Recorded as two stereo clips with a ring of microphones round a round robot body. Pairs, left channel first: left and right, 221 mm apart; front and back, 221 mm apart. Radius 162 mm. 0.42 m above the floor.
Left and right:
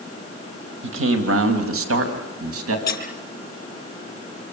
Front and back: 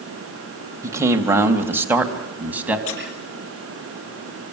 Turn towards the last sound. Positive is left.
turn(degrees=45)